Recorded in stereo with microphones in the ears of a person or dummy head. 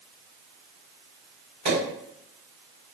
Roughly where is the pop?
Right.